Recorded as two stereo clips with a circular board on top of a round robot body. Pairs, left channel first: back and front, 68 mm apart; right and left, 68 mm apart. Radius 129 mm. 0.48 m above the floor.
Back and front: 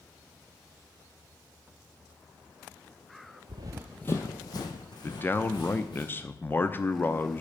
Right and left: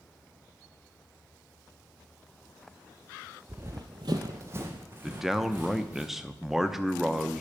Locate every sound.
3.5 s running footsteps: 20° left, 0.7 m; by 6.0 s 160° left, 3 m
5.0 s a man speaking: 170° left, 1.0 m